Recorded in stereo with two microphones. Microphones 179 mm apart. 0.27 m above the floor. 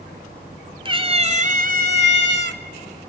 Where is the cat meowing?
30° right (ahead or behind), 1.3 m; by 2.6 s 75° right (ahead or behind), 0.8 m.